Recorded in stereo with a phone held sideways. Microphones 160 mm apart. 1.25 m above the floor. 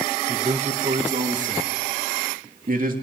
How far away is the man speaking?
About 0.9 m.